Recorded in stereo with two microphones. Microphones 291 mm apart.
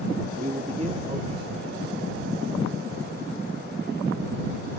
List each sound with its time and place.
0.4 s a man speaking: 25° right (ahead or behind); by 2.5 s 15° right (ahead or behind)